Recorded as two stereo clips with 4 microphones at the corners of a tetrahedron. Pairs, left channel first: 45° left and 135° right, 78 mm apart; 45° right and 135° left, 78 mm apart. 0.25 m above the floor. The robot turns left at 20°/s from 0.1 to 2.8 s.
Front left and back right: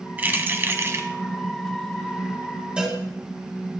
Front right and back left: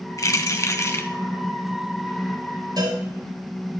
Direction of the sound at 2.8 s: 150° left.